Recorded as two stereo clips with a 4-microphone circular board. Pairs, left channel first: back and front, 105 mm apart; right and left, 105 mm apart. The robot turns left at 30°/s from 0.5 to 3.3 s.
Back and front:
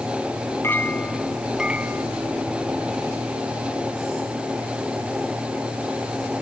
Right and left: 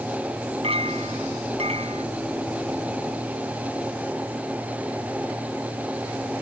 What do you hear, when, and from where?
0.6 s a clink: 110° left; by 2.1 s 70° left